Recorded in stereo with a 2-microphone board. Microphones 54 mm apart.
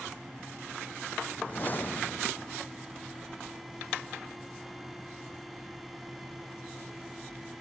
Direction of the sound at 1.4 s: 35° left (ahead or behind).